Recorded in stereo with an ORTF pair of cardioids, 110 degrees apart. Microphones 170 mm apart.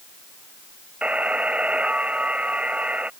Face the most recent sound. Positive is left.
turn(degrees=-5)